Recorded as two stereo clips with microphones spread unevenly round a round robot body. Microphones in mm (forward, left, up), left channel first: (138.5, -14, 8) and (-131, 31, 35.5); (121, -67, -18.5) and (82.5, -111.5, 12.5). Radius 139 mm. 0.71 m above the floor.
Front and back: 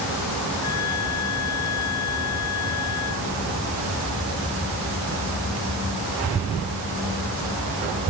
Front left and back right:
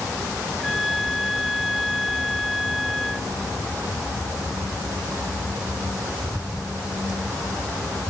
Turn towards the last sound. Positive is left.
turn(degrees=-45)